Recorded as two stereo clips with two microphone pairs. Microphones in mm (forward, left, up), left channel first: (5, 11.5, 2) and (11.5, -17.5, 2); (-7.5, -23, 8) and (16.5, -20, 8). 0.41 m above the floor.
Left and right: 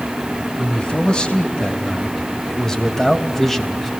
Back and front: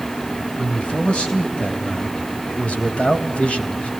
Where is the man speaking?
155° left, 3.5 m; by 3.9 s 170° right, 3 m.